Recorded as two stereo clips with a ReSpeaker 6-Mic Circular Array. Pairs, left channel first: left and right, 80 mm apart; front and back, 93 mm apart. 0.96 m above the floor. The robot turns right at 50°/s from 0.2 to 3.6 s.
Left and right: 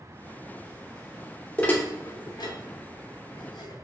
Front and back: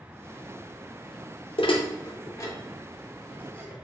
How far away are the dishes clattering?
About 0.6 m.